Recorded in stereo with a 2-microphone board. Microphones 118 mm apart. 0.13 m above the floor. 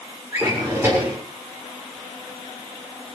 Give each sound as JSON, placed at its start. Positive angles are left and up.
{"t": 0.3, "sound": "a drawer", "side_deg": -25, "distance_m": 7.0}